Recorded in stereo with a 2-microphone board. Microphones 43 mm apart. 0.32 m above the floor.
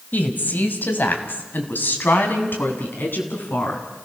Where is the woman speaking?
45° left (ahead or behind), 2 m; by 3.8 s 55° left (ahead or behind), 4 m.